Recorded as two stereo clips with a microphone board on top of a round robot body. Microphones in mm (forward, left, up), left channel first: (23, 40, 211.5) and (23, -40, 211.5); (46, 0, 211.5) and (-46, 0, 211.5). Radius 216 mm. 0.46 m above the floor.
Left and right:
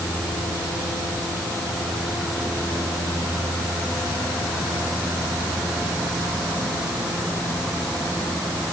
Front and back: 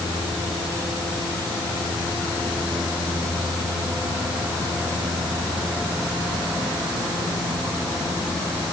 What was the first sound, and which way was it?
Only background noise.